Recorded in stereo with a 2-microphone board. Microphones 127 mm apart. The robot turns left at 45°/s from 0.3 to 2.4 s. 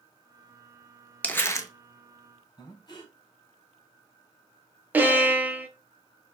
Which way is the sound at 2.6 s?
30° left (ahead or behind).